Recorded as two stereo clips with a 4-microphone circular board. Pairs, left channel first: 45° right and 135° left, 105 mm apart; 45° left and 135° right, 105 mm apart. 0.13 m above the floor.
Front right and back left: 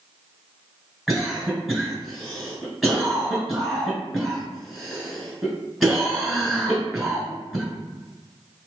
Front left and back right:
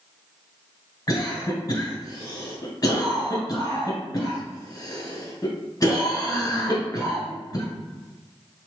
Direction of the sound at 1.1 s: 45° left.